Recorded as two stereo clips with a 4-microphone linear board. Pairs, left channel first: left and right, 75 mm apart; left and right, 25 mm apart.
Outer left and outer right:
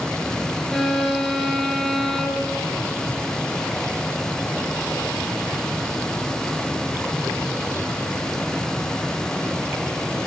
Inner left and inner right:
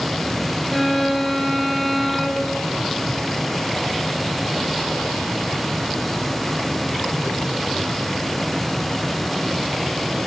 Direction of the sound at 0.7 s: 5° left (ahead or behind).